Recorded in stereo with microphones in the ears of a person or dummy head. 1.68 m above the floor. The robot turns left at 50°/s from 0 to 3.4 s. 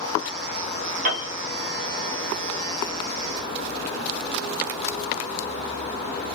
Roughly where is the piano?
Right.